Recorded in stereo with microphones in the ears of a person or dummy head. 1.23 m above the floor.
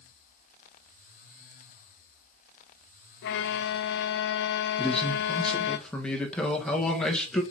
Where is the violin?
65° left (ahead or behind), 0.6 m.